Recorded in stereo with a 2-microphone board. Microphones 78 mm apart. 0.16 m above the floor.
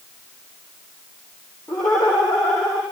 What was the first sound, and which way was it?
Laughter, 55° left (ahead or behind).